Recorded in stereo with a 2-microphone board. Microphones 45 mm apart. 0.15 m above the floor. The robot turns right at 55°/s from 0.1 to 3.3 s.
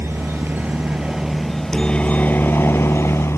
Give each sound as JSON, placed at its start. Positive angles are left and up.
{"t": 0.0, "sound": "a helicopter", "side_deg": -60}